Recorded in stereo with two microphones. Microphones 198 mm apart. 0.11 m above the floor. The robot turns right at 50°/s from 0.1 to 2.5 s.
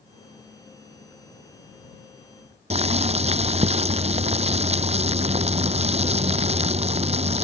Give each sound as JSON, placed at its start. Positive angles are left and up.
{"t": 2.7, "sound": "boiling", "side_deg": -35}